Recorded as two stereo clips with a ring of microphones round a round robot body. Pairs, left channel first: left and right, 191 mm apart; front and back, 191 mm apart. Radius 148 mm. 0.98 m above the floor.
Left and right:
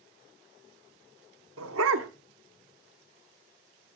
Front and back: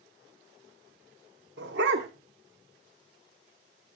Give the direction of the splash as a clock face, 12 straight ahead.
I don't hear a splash.